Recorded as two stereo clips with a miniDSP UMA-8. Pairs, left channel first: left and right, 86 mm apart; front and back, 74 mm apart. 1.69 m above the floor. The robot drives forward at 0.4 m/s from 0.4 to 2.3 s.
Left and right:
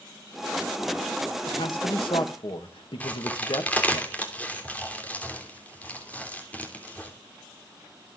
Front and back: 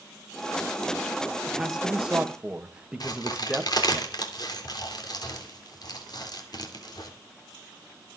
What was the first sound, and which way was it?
A man speaking, 90° left.